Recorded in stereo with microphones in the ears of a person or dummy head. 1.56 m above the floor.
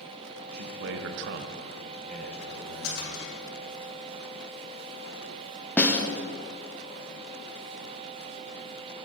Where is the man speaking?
50° right (ahead or behind), 1.1 m; by 3.1 s 15° left (ahead or behind), 2.5 m.